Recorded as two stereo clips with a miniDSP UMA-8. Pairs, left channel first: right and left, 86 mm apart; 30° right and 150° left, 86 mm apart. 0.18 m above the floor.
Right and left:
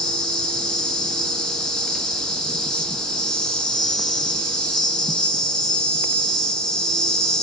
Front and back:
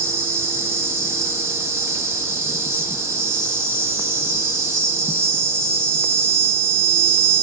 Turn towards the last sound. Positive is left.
turn(degrees=-165)